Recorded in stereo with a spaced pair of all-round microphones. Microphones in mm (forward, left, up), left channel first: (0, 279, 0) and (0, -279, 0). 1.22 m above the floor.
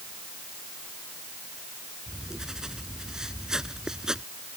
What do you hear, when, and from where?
2.1 s writing: centre (ahead or behind)